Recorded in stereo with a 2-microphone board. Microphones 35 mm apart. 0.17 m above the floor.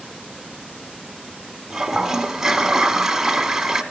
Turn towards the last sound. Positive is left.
turn(degrees=-15)  # may be behind; listen again after turning